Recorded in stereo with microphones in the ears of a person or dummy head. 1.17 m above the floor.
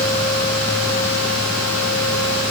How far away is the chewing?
I don't hear chewing.